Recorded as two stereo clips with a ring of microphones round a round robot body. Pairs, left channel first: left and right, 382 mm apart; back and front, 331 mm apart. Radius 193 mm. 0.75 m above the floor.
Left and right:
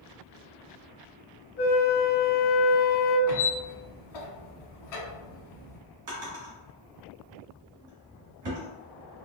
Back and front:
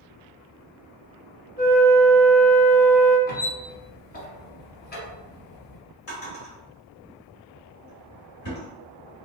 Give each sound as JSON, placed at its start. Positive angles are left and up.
{"t": 1.6, "sound": "a flute", "azimuth_deg": 130, "distance_m": 1.1}
{"t": 3.3, "sound": "a squeak", "azimuth_deg": 120, "distance_m": 1.1}
{"t": 6.1, "sound": "a drawer", "azimuth_deg": -125, "distance_m": 2.0}